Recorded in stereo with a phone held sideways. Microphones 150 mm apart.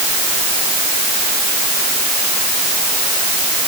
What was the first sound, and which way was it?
Only background noise.